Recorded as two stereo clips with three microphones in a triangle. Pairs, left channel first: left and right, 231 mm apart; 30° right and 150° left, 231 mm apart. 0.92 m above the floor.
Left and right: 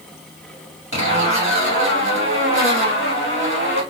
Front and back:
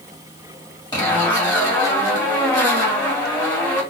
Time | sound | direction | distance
0.9 | a zipper | 100° right | 1.8 m